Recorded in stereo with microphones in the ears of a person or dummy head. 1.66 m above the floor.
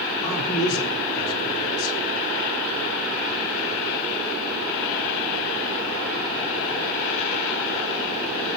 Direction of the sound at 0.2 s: 20° left (ahead or behind).